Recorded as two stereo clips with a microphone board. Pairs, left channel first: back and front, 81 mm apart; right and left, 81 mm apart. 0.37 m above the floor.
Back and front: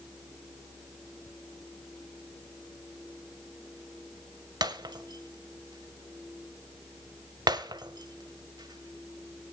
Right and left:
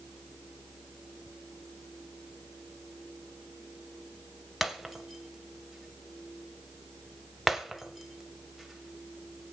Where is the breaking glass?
Straight ahead, 1.2 m.